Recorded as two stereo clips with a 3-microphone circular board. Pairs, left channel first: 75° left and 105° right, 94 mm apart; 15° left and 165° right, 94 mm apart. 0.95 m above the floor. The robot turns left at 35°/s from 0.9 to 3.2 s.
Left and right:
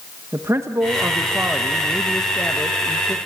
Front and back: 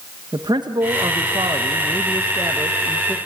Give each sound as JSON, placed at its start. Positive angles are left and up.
{"t": 0.3, "sound": "a man speaking", "azimuth_deg": -155, "distance_m": 0.8}